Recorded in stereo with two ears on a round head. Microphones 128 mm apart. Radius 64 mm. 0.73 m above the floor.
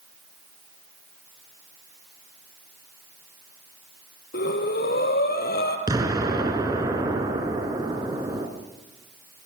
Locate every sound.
4.3 s breathing: 80° left, 3.5 m
5.9 s an explosion: 25° right (ahead or behind), 3.5 m